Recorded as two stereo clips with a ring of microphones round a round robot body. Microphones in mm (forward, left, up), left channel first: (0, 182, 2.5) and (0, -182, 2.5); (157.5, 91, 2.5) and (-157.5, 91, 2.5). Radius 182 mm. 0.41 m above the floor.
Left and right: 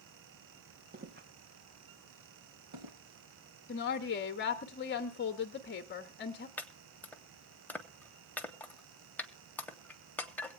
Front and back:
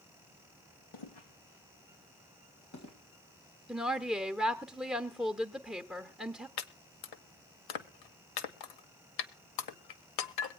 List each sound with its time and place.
0.9 s footsteps: 20° right, 2.0 m; by 3.0 s 50° right, 4.5 m
3.7 s a woman speaking: 90° left, 1.0 m
6.6 s chopping: 5° left, 0.9 m